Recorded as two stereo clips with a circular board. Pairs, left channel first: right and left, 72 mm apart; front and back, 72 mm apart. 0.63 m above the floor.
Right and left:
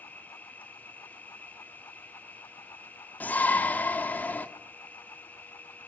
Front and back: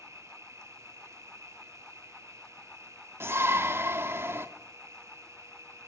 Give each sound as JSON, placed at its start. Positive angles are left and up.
{"t": 0.0, "sound": "an insect", "azimuth_deg": -150, "distance_m": 1.2}
{"t": 3.2, "sound": "a shout", "azimuth_deg": -145, "distance_m": 1.5}